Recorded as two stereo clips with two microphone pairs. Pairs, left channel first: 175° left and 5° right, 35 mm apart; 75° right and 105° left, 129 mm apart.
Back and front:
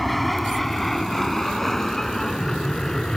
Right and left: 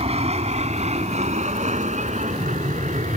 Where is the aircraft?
90° left; by 3.2 s 105° left.